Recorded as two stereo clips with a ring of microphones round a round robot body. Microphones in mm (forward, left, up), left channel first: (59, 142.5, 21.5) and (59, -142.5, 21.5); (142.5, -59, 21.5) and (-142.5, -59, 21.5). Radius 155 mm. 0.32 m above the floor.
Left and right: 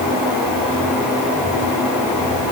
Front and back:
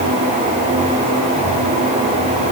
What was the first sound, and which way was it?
Only background noise.